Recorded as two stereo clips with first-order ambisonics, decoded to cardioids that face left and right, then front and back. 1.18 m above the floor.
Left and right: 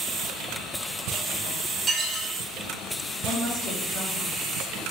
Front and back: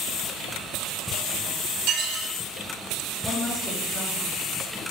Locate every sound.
1.9 s dishes clattering: 160° right, 0.8 m
3.2 s a woman speaking: 90° left, 1.7 m